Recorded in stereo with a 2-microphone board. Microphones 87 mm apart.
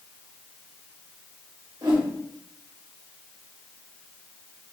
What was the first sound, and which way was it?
A whoosh, 60° right (ahead or behind).